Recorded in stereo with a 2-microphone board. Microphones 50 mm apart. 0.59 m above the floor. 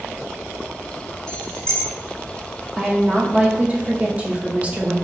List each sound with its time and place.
1.3 s keys jangling: 15° left (ahead or behind), 1.1 m
2.8 s a woman speaking: 25° right (ahead or behind), 0.7 m